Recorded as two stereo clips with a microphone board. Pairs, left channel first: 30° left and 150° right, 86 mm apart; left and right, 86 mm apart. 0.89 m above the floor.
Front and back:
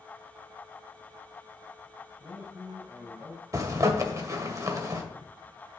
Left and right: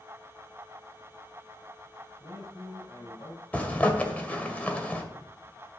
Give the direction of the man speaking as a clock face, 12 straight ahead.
7 o'clock.